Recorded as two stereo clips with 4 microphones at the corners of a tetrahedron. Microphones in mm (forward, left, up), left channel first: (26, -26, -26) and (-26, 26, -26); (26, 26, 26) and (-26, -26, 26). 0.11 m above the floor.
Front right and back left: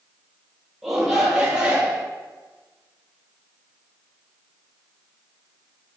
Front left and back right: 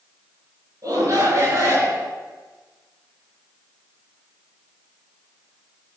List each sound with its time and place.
0.8 s a shout: 140° right, 1.9 m; by 2.1 s 160° right, 1.7 m